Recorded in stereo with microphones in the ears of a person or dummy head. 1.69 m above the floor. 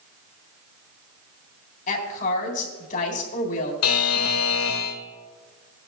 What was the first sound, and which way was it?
A woman speaking, 45° left (ahead or behind).